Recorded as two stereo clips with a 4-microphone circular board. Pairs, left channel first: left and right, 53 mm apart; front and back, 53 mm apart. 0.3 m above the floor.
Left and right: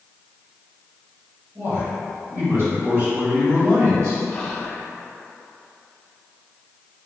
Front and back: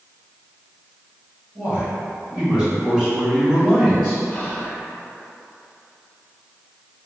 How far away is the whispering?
About 0.9 m.